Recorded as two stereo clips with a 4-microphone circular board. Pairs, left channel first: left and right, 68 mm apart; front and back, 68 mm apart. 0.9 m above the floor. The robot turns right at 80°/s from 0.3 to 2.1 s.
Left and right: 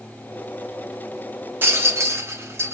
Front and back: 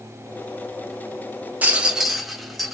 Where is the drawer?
No drawer in this recording.